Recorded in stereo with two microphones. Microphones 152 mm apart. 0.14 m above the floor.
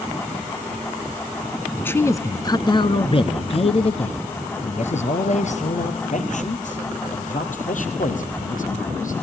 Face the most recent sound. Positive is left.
turn(degrees=65)  # may be behind; listen again after turning